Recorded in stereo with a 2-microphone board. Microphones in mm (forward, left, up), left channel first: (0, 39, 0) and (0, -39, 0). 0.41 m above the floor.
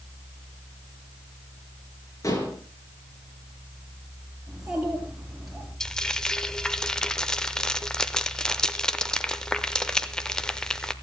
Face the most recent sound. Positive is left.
turn(degrees=10)  # may be behind; listen again after turning